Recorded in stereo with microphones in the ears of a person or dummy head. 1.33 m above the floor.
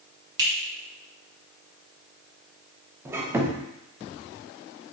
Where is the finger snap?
25° right (ahead or behind), 2.0 m.